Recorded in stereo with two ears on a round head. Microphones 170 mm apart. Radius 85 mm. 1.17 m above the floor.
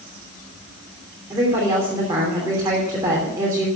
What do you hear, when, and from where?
1.3 s a woman speaking: 15° right (ahead or behind), 3 m